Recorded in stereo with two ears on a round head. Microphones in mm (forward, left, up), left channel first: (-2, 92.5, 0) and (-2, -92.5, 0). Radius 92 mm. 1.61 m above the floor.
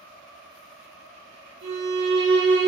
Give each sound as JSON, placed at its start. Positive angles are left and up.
{"t": 1.6, "sound": "a violin", "side_deg": -60, "distance_m": 4.5}